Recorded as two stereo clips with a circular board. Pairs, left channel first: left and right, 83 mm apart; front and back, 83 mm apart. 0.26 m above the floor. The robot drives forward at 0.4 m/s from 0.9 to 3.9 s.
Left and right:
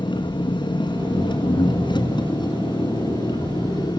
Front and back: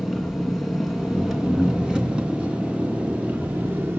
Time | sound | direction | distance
0.0 | an engine running | 90° left | 3 m